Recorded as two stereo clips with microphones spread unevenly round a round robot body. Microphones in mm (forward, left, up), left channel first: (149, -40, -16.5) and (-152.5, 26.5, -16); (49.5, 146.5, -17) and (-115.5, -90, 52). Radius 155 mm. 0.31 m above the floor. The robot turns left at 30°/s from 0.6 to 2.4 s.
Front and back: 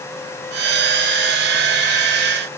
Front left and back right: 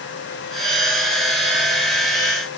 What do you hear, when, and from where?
Only background noise.